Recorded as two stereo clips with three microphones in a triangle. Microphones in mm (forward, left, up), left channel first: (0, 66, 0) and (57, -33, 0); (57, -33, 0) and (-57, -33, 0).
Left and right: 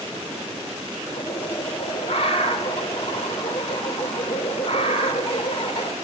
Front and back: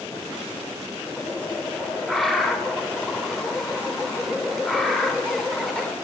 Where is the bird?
90° left, 3 m.